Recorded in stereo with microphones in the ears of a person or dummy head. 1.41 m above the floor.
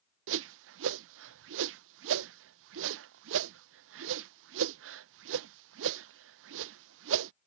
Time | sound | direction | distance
0.3 | a whoosh | 65° right (ahead or behind) | ?